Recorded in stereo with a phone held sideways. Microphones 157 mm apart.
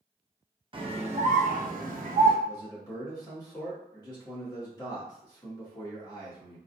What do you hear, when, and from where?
0.7 s a scream: 35° right (ahead or behind), 0.9 m; by 2.4 s 60° right (ahead or behind), 1.0 m
2.5 s a man speaking: 25° left (ahead or behind), 1.4 m